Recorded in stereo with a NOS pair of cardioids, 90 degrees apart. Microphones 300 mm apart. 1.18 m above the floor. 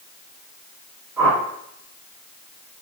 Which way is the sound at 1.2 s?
10° right.